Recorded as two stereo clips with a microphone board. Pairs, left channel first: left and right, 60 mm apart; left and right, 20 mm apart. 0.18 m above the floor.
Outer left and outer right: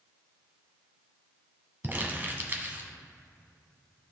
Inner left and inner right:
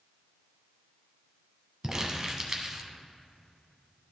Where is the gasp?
I don't hear a gasp.